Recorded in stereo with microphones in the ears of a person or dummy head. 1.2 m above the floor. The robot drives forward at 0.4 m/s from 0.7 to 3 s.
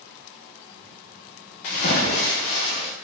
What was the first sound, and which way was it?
A splash, 35° left (ahead or behind).